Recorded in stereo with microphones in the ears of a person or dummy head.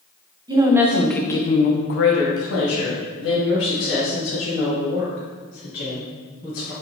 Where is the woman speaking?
15° right (ahead or behind), 0.7 m; by 6.7 s 70° left (ahead or behind), 3 m.